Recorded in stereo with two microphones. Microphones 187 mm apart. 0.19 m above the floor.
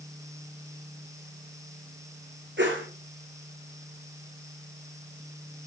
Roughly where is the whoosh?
Right.